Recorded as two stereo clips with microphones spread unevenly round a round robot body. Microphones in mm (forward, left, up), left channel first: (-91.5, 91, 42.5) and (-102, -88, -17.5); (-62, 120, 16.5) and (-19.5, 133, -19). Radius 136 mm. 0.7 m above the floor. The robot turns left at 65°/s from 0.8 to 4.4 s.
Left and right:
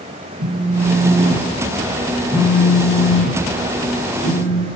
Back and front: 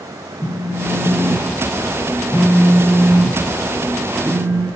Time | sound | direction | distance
0.4 | a phone buzzing | 70° right | 5 m